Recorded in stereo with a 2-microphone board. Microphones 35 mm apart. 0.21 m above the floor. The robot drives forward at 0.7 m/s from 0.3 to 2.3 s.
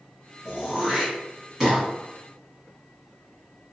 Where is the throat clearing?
20° right (ahead or behind), 1.0 m; by 1.8 s 10° right (ahead or behind), 1.5 m.